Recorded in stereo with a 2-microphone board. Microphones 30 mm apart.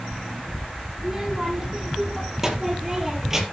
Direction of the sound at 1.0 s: 20° right (ahead or behind).